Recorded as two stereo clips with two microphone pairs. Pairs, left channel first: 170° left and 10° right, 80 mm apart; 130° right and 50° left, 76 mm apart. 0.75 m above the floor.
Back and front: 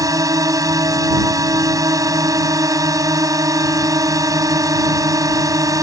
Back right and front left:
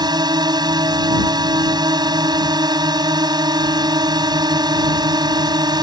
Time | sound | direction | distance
0.0 | a drone | 35° left | ?